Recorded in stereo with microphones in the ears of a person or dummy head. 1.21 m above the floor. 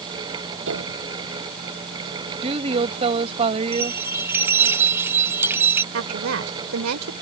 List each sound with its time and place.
0.7 s a piano: 65° right (ahead or behind)
2.4 s a woman speaking: 30° right (ahead or behind)
3.7 s a bell: 5° right (ahead or behind)
5.9 s a woman speaking: 80° right